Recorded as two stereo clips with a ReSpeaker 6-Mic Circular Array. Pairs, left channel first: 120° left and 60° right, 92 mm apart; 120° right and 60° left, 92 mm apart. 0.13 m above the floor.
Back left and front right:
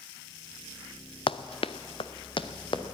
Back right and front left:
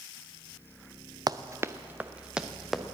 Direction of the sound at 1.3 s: 105° left.